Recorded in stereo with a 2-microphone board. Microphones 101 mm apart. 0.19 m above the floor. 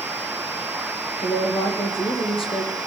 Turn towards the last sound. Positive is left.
turn(degrees=65)  # may be behind; listen again after turning